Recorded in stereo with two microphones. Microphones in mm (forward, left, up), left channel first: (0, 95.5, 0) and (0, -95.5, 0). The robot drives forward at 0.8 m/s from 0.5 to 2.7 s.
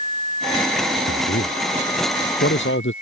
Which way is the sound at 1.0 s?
80° left.